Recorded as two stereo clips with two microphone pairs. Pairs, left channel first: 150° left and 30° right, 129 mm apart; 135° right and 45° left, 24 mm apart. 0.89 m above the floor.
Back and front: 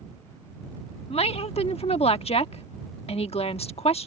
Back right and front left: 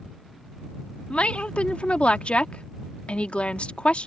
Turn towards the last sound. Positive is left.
turn(degrees=-170)